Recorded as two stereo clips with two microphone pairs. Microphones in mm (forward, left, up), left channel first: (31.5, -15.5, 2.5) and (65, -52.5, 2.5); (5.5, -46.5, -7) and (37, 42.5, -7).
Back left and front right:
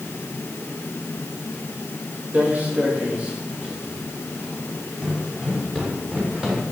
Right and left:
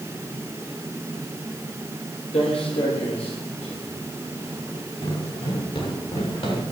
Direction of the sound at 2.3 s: 110° right.